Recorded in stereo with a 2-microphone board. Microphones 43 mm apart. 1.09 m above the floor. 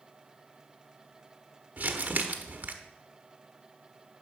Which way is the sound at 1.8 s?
40° right (ahead or behind).